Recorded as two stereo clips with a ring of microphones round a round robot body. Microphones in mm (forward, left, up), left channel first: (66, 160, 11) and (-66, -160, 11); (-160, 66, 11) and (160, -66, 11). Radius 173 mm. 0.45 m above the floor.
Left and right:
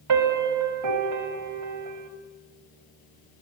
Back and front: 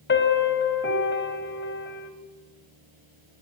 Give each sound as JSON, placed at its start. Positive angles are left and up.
{"t": 0.1, "sound": "a piano", "azimuth_deg": -145, "distance_m": 2.5}